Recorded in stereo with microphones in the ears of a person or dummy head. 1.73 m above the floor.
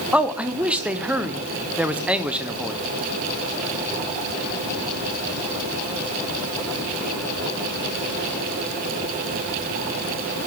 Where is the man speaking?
5° right (ahead or behind), 0.7 m.